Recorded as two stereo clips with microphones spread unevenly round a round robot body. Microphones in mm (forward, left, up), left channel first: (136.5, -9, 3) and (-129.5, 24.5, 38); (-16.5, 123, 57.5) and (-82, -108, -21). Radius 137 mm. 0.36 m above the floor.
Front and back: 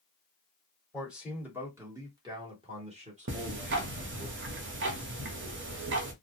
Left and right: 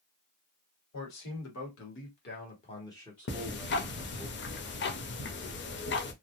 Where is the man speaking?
80° left, 1.7 m; by 4.3 s 125° right, 1.6 m.